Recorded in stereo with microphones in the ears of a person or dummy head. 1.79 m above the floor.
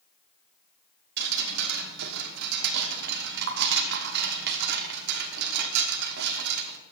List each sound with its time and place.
1.2 s dripping: 60° right (ahead or behind), 1.1 m